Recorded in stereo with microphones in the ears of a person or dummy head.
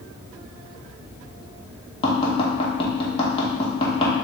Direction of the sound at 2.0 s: 25° left (ahead or behind).